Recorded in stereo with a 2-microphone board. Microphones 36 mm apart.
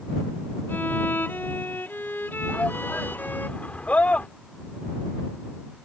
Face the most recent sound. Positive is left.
turn(degrees=40)  # may be behind; listen again after turning